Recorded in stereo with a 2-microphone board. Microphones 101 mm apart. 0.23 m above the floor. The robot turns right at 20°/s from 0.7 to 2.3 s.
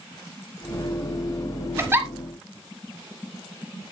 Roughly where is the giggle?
Right.